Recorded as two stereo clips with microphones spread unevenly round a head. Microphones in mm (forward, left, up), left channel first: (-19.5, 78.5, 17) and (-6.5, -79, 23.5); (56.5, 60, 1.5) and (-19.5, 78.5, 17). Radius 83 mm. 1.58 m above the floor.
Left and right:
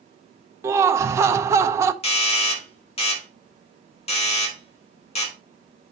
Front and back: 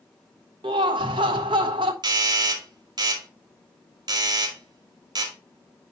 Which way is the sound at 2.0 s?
145° left.